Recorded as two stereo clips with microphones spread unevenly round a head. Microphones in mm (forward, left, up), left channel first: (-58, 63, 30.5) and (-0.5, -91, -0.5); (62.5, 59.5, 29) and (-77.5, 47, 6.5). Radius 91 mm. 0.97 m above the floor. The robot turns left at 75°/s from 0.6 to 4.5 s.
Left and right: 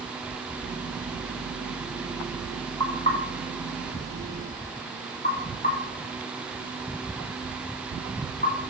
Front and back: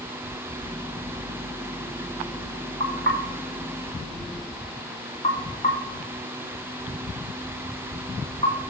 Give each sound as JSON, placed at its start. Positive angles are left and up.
{"t": 2.8, "sound": "knocking", "azimuth_deg": -175, "distance_m": 2.5}